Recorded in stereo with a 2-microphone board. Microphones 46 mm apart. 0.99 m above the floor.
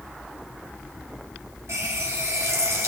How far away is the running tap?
About 4.5 m.